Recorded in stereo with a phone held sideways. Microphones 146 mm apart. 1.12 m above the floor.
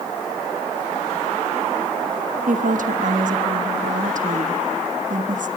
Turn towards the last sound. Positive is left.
turn(degrees=-70)  # may be behind; listen again after turning